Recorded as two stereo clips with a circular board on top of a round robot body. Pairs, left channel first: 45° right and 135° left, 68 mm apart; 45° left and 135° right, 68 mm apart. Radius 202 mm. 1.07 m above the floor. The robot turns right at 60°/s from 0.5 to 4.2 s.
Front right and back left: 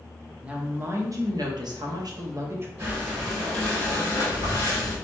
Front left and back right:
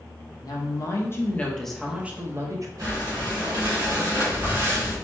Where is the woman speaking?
60° left, 0.8 m; by 2.7 s 170° right, 0.8 m.